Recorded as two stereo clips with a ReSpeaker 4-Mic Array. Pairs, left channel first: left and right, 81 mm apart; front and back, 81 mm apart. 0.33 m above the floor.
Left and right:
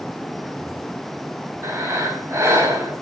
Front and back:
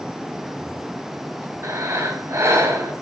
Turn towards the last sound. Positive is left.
turn(degrees=-135)